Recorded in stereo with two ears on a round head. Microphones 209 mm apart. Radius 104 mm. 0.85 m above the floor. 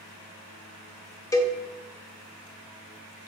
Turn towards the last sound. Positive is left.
turn(degrees=15)  # may be behind; listen again after turning